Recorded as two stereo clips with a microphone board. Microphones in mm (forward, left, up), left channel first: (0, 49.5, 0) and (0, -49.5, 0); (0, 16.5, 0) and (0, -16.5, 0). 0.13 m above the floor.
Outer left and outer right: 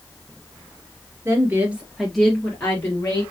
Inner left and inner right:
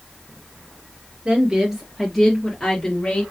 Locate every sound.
1.2 s a woman speaking: 25° right (ahead or behind), 2.5 m; by 3.2 s 30° left (ahead or behind), 3 m